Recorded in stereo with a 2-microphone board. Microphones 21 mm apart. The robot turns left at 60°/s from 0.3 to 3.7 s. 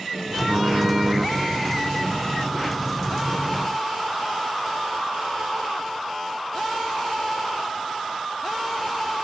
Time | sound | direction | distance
0.5 | typing on a keyboard | 85° right | 4.5 m